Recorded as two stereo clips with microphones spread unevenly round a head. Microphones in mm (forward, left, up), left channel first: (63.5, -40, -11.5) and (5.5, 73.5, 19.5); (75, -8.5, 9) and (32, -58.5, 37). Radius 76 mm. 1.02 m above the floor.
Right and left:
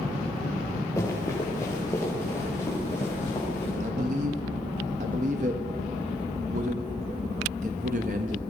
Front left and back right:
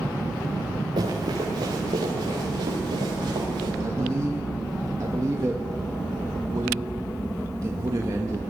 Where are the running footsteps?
140° right, 5.5 m.